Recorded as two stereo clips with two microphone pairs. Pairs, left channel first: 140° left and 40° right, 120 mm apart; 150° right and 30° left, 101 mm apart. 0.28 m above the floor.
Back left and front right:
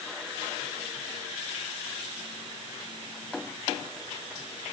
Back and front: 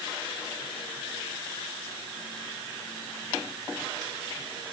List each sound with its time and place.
Only background noise.